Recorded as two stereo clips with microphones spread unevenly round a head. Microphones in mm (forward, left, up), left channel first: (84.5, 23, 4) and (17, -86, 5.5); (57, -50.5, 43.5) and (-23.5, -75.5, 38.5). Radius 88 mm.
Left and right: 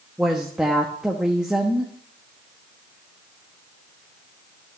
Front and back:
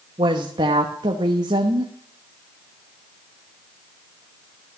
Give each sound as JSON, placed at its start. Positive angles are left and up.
{"t": 0.2, "sound": "a woman speaking", "azimuth_deg": 155, "distance_m": 1.1}